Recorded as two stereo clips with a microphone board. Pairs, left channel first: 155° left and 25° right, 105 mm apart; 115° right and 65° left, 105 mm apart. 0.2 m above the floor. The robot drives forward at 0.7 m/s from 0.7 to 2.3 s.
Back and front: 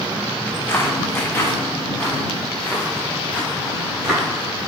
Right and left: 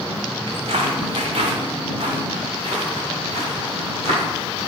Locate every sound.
0.5 s footsteps: 100° left, 0.7 m; by 4.7 s 55° left, 2.5 m